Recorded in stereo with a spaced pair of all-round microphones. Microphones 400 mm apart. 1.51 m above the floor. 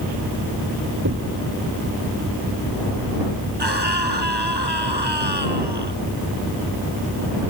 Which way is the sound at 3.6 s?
80° right.